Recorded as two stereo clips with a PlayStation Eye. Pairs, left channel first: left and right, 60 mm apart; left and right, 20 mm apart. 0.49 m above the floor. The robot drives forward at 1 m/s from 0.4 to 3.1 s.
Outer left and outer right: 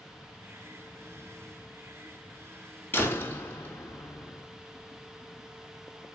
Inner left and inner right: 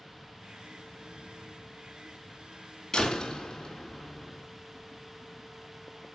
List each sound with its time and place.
2.9 s a door slam: 30° left (ahead or behind), 3.5 m